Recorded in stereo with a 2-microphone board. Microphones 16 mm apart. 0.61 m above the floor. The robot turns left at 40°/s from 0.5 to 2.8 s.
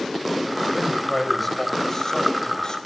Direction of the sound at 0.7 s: 165° right.